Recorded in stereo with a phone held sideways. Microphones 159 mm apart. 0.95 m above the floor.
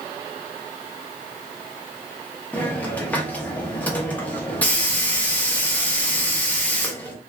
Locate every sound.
2.5 s a hiss: 10° left (ahead or behind), 0.7 m